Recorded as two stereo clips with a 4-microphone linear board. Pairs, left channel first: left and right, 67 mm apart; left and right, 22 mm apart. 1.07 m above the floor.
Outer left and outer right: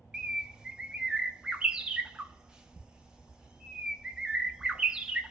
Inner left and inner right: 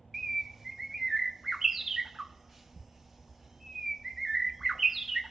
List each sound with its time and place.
0.1 s a bird: 10° right (ahead or behind), 0.5 m